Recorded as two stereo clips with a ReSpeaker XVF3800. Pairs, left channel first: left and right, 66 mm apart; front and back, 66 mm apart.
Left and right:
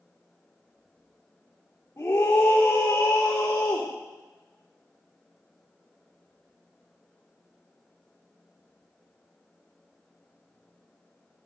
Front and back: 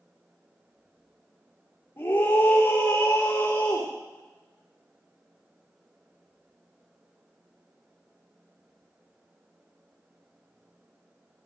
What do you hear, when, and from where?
2.0 s a scream: 35° left, 3 m